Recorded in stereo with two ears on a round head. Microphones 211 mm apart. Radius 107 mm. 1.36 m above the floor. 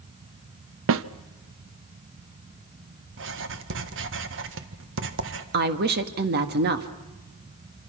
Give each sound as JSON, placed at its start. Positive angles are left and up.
{"t": 0.9, "sound": "a snare drum", "side_deg": -55, "distance_m": 0.8}
{"t": 3.1, "sound": "writing", "side_deg": -55, "distance_m": 1.6}
{"t": 5.5, "sound": "a woman speaking", "side_deg": -40, "distance_m": 1.7}